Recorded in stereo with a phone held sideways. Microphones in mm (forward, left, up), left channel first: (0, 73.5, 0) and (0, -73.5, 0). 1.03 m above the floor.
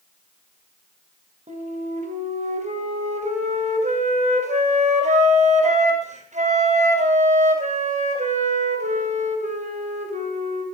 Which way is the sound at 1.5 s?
55° right (ahead or behind).